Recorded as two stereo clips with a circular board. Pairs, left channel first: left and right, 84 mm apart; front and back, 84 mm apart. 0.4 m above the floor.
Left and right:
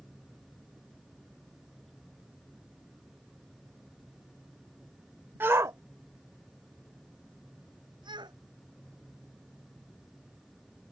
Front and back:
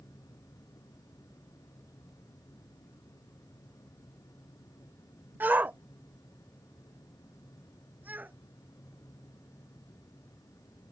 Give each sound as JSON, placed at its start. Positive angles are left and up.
{"t": 5.4, "sound": "a shout", "azimuth_deg": -135}